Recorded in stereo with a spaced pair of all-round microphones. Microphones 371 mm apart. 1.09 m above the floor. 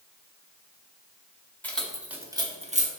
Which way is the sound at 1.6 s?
5° left (ahead or behind).